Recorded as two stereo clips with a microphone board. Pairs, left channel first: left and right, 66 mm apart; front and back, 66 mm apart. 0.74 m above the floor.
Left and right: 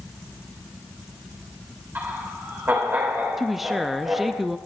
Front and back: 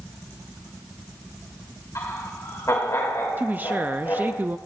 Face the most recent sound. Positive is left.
turn(degrees=-175)